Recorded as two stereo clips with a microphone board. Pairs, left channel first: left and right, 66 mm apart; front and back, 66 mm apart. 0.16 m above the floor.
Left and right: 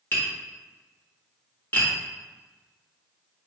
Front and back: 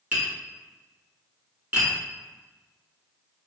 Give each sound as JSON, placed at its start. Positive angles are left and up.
{"t": 0.1, "sound": "tapping", "azimuth_deg": 125, "distance_m": 1.6}